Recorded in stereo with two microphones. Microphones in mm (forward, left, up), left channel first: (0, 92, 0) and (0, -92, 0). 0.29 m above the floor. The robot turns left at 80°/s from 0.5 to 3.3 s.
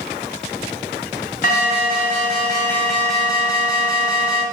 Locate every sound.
1.4 s an alarm: 115° left, 2 m; by 4.4 s 35° right, 2 m